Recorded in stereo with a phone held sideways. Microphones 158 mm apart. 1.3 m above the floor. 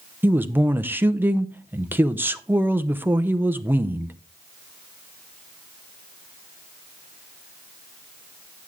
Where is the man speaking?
10° right (ahead or behind), 0.7 m.